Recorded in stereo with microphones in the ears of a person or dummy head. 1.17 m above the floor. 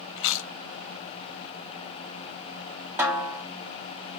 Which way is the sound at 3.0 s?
10° right (ahead or behind).